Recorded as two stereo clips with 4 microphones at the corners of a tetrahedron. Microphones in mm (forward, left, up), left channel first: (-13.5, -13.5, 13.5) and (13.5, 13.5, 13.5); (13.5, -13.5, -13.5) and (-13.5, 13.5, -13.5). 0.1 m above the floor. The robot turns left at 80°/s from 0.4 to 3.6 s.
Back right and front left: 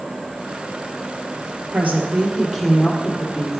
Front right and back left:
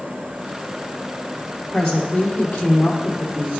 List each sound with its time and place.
1.7 s a woman speaking: 30° left, 2 m; by 3.6 s 120° right, 2 m